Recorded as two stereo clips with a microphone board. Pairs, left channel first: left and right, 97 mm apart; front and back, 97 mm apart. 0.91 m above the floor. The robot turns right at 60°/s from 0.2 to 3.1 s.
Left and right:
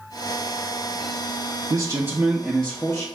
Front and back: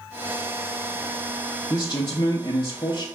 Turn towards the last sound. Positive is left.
turn(degrees=35)